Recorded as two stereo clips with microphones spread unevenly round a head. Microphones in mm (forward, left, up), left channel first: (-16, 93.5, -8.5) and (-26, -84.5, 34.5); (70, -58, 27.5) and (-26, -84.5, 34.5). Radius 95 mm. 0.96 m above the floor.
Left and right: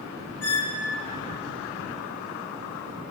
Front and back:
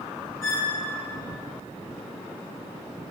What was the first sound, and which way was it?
A squeak, 100° left.